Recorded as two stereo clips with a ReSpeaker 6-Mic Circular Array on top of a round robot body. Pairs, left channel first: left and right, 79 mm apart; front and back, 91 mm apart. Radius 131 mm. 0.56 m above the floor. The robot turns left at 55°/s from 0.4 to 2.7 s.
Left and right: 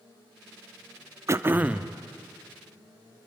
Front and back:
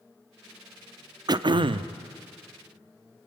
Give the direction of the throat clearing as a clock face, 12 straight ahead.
5 o'clock.